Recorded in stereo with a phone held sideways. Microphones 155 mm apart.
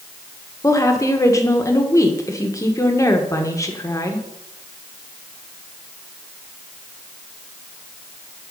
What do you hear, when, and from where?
0.6 s a woman speaking: 20° left (ahead or behind), 1.2 m